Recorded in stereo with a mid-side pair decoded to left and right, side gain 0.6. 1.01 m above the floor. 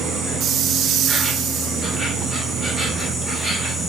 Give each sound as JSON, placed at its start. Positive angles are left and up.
{"t": 0.0, "sound": "an insect", "azimuth_deg": -15, "distance_m": 1.4}